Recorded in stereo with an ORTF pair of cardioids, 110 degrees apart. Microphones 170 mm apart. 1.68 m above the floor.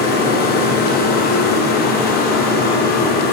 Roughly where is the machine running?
Ahead left.